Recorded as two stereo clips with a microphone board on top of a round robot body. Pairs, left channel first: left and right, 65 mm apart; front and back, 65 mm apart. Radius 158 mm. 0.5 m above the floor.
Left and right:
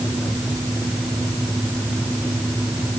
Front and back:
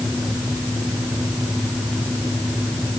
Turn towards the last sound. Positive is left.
No sound to turn to.